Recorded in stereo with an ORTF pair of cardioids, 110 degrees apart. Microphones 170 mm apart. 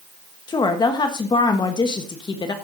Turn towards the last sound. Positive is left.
turn(degrees=25)